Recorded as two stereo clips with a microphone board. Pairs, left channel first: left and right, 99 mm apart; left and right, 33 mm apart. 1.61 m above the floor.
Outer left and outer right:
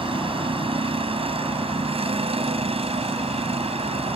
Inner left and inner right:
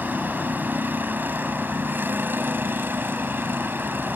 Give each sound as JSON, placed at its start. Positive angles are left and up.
{"t": 0.0, "sound": "a vehicle", "side_deg": -65}